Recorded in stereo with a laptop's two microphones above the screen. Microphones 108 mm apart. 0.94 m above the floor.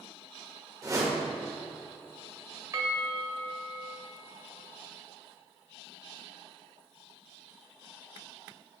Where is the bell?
30° right (ahead or behind), 1.6 m.